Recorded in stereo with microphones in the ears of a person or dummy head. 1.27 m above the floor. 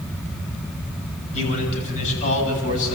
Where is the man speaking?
35° left (ahead or behind), 8.5 m; by 3.0 s 40° left (ahead or behind), 9.5 m.